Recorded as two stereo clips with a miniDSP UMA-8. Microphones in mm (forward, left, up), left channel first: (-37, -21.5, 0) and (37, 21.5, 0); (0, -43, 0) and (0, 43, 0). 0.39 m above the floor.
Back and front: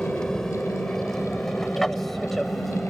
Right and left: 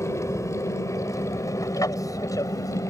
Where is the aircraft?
70° right; by 2.9 s 60° right.